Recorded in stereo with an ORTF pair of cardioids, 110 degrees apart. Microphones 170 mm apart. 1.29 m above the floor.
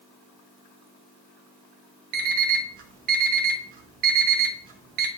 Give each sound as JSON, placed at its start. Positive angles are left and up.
{"t": 2.1, "sound": "an alarm clock", "azimuth_deg": -65, "distance_m": 1.3}